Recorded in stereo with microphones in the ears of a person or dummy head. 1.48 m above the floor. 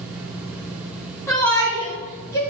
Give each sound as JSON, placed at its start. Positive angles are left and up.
{"t": 1.3, "sound": "a shout", "side_deg": 15, "distance_m": 2.5}